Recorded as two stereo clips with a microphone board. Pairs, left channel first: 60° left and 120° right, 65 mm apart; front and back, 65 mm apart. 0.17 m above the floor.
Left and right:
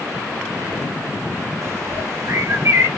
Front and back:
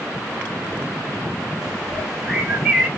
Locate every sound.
1.6 s a bird: 100° right, 2 m